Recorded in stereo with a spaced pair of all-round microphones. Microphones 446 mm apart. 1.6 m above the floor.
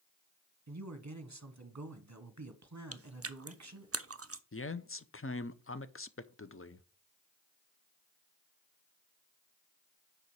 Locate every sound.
0.7 s a man speaking: 40° right (ahead or behind), 1.0 m
2.9 s chewing: 35° right (ahead or behind), 0.5 m
4.5 s a man speaking: 30° left (ahead or behind), 0.6 m